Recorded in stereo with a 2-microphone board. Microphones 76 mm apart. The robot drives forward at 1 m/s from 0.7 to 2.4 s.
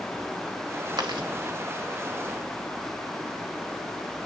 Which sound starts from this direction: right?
Chewing, at 1.0 s.